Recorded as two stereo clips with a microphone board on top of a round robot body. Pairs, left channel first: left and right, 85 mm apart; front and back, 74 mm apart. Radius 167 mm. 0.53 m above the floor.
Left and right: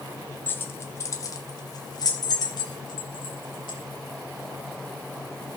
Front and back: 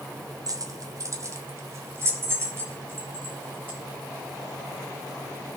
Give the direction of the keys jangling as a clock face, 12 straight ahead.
7 o'clock.